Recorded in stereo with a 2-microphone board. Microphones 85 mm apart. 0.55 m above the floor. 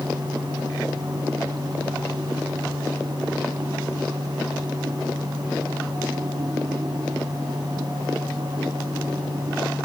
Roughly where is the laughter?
I don't hear laughter.